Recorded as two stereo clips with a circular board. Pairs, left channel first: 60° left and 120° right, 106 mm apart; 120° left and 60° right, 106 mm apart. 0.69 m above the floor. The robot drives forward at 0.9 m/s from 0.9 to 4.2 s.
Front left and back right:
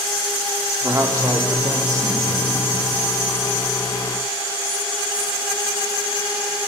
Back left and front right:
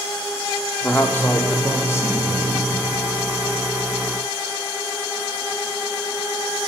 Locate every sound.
0.8 s a man speaking: 170° right, 1.2 m; by 2.7 s 175° right, 2.5 m